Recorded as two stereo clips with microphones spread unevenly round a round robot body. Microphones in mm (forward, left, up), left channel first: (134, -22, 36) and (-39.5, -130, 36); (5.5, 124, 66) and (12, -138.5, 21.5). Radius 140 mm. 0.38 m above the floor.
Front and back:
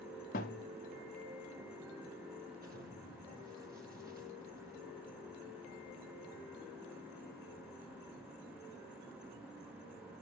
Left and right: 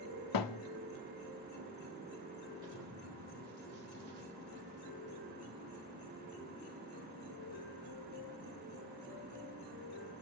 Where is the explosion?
105° right, 4.5 m.